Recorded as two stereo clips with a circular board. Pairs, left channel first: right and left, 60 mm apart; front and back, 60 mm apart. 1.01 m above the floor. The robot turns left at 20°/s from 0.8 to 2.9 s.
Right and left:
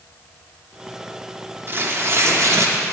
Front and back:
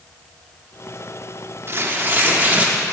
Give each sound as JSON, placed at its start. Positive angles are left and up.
{"t": 1.7, "sound": "tearing paper", "azimuth_deg": 135, "distance_m": 0.8}